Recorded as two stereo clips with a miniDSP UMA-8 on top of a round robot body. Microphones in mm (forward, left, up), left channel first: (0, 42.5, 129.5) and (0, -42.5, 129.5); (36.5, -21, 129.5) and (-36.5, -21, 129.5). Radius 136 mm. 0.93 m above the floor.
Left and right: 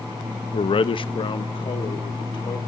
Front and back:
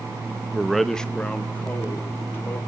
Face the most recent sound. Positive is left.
turn(degrees=60)